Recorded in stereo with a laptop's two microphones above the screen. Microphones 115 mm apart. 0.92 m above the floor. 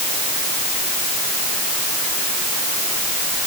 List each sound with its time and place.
Only background noise.